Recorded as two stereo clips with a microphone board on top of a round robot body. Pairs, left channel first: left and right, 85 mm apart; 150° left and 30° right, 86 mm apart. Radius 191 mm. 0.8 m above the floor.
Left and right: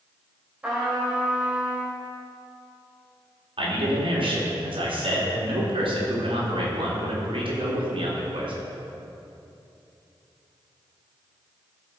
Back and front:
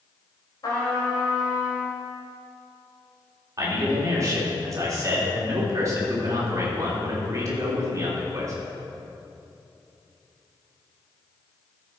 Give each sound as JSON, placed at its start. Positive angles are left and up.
{"t": 0.6, "sound": "a trumpet", "azimuth_deg": -165, "distance_m": 3.5}
{"t": 3.6, "sound": "a man speaking", "azimuth_deg": -85, "distance_m": 3.5}